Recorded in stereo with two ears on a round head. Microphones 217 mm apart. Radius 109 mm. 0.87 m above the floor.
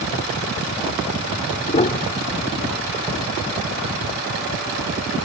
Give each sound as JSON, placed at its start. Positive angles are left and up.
{"t": 1.7, "sound": "a piano", "side_deg": 30}